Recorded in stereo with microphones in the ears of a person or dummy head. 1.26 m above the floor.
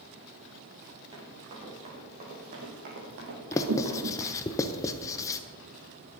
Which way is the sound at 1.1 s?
30° right (ahead or behind).